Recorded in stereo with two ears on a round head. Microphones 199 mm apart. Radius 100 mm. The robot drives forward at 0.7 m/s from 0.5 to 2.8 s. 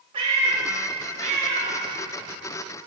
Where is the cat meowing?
25° right (ahead or behind), 1.3 m; by 1.8 s 30° right (ahead or behind), 1.0 m.